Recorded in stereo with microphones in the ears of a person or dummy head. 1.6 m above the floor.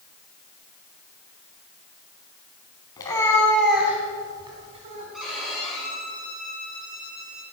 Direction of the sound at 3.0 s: 20° left (ahead or behind).